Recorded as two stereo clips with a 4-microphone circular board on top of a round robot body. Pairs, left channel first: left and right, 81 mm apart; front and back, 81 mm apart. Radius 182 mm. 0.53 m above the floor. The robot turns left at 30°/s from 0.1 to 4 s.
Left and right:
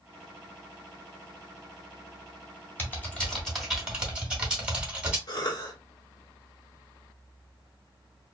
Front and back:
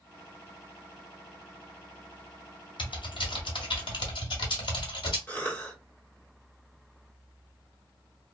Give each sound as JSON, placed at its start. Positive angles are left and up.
{"t": 2.8, "sound": "typing on a keyboard", "azimuth_deg": 25, "distance_m": 1.3}
{"t": 5.3, "sound": "a cough", "azimuth_deg": 65, "distance_m": 1.5}